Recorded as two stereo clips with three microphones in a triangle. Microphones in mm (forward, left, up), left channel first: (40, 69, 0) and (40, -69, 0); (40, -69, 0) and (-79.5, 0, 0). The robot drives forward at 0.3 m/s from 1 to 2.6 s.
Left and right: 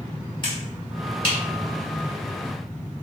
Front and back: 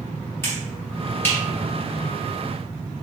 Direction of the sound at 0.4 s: 40° left.